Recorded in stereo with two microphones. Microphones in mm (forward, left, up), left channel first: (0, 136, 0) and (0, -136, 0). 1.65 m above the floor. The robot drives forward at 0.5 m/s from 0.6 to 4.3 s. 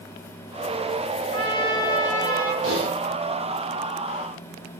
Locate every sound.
1.3 s a trumpet: 15° left (ahead or behind), 2.0 m
2.6 s typing on a keyboard: 55° right (ahead or behind), 5.5 m; by 2.9 s 60° right (ahead or behind), 5.5 m